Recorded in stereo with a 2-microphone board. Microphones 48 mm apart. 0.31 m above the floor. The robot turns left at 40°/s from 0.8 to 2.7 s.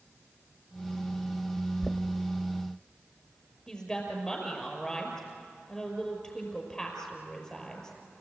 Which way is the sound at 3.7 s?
10° left (ahead or behind).